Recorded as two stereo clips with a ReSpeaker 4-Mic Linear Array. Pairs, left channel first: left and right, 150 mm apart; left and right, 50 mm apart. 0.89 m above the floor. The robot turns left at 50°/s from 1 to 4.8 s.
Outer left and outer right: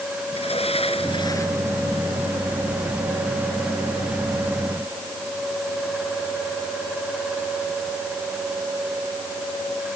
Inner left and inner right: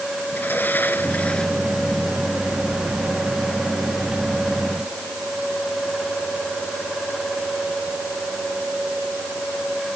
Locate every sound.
0.3 s a sliding door: 40° left; by 1.6 s 10° left